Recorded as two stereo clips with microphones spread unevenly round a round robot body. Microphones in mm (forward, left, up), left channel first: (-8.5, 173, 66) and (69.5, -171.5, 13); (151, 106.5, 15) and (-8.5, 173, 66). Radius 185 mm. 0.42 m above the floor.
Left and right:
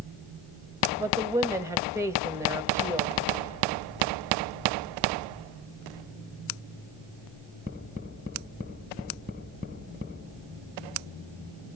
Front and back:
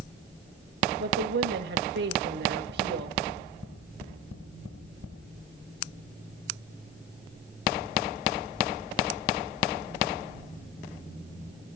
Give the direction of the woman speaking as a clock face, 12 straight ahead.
5 o'clock.